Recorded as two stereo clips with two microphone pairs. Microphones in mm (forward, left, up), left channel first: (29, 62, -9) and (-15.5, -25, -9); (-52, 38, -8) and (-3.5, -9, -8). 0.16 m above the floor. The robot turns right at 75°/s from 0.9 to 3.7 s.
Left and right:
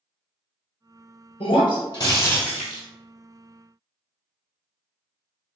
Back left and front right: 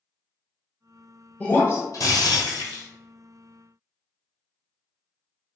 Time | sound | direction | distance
1.4 | breaking glass | 60° left | 1.0 m